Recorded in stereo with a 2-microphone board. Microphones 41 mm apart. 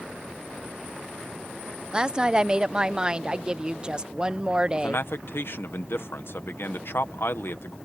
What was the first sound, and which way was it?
A woman speaking, 20° right (ahead or behind).